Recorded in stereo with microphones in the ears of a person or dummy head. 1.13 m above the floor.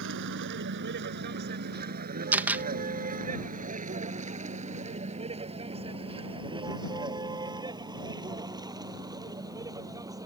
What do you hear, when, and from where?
0.0 s a vehicle: 65° right (ahead or behind); by 10.2 s 15° right (ahead or behind)
2.3 s a camera shutter: 10° right (ahead or behind)